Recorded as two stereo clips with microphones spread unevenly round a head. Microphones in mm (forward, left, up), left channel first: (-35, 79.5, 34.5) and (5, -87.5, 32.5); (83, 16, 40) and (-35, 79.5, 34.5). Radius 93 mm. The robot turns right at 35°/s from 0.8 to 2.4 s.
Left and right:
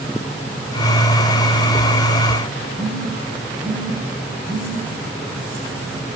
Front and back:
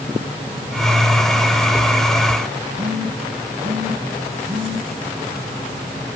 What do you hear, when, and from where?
2.8 s a phone buzzing: 145° right, 6 m